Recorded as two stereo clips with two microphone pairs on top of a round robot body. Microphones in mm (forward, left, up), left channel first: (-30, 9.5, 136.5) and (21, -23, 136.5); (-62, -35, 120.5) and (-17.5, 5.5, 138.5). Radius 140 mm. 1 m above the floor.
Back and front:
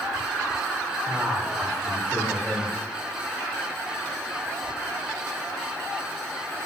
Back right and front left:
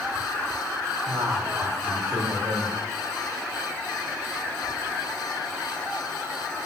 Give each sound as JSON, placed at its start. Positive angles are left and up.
{"t": 1.1, "sound": "a man speaking", "azimuth_deg": 55, "distance_m": 5.5}